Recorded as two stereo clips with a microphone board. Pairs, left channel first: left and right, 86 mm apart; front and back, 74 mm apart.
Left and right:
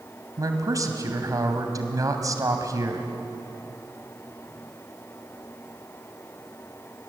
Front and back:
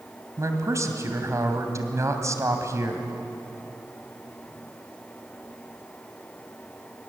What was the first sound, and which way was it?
A man speaking, 135° right.